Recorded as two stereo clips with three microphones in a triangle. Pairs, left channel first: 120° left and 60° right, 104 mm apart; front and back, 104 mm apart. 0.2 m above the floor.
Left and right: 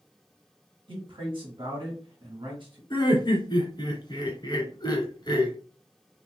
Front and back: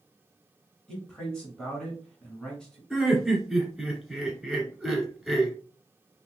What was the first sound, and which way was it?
A man speaking, 80° right.